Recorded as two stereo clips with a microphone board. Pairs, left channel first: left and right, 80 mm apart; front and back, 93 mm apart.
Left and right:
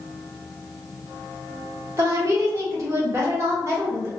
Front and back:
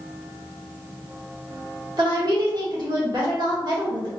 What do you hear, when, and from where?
2.0 s a woman speaking: 145° right, 1.3 m